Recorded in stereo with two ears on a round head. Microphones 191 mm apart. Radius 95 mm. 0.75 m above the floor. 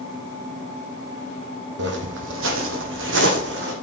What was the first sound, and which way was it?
Footsteps, 55° right (ahead or behind).